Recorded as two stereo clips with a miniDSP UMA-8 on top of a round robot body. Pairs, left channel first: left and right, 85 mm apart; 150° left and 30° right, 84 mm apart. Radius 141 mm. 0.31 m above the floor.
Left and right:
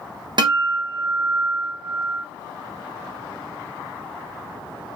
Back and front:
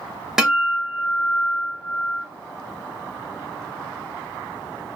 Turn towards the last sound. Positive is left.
turn(degrees=-115)